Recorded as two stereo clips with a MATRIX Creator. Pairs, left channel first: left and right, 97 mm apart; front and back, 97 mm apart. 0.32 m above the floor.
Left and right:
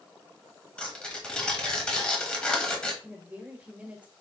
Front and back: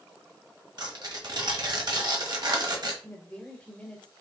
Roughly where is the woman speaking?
Ahead right.